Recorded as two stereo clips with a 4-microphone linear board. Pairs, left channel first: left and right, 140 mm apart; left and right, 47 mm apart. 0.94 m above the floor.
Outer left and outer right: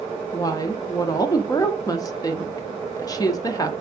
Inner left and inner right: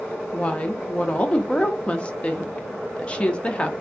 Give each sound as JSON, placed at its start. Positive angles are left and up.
{"t": 0.3, "sound": "a woman speaking", "side_deg": 25, "distance_m": 0.7}